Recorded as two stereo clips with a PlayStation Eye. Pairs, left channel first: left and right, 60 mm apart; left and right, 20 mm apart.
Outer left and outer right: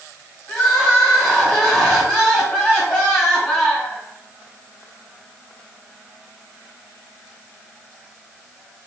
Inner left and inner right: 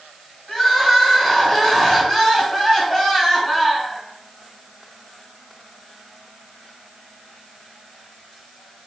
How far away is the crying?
About 1.8 m.